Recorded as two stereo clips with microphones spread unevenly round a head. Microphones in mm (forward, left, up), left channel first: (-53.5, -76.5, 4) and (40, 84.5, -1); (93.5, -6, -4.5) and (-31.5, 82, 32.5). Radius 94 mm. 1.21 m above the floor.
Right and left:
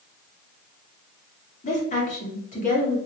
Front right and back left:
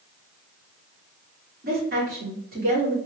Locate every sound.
1.6 s a woman speaking: 170° right, 2 m